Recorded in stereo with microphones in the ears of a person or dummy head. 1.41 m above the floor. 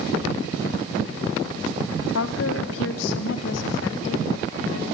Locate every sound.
2.1 s a woman speaking: 85° left, 1.2 m; by 4.8 s 75° left (ahead or behind), 3.5 m